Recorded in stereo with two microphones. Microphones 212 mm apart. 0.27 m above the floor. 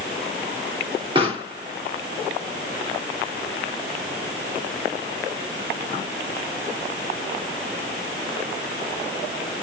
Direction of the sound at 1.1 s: 25° right (ahead or behind).